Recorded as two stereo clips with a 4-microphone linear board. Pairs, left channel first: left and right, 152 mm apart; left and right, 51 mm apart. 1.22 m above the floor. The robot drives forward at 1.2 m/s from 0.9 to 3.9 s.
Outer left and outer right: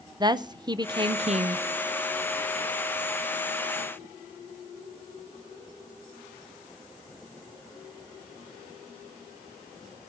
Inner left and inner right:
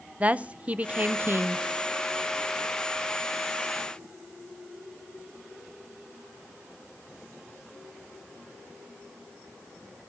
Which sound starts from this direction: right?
A woman speaking, at 0.2 s.